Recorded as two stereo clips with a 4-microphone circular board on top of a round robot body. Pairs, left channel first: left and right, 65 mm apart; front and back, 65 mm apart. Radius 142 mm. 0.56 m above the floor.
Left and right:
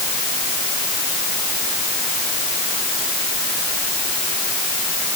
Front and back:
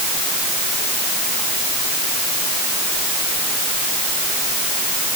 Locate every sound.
Only background noise.